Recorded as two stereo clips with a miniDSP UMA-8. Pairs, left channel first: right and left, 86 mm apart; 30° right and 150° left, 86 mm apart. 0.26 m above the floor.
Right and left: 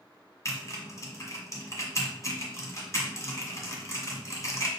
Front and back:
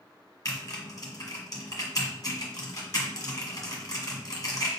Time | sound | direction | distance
0.5 | typing on a keyboard | 55° right | 1.4 m